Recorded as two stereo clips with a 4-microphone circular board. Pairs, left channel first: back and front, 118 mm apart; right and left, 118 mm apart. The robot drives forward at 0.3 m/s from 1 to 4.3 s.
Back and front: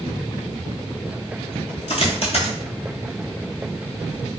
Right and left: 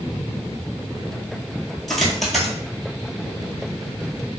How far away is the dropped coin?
About 0.9 m.